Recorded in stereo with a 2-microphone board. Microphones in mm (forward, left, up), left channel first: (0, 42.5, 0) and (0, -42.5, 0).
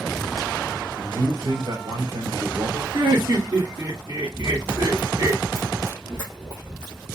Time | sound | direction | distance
1.0 | a man speaking | 70° right (ahead or behind) | 2.5 m
2.9 | laughter | 65° right (ahead or behind) | 1.4 m
4.3 | running footsteps | 10° right (ahead or behind) | 1.6 m